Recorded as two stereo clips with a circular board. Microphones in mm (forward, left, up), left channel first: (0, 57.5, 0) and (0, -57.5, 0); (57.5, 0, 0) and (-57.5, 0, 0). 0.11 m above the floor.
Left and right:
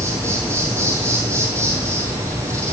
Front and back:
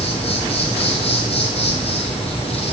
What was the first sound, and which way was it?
An insect, 25° right.